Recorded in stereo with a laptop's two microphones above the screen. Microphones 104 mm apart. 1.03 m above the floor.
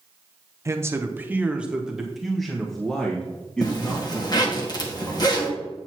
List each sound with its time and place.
0.7 s a man speaking: 30° right (ahead or behind), 0.8 m; by 4.6 s 10° left (ahead or behind), 2.5 m
3.6 s a zipper: 40° left (ahead or behind), 1.7 m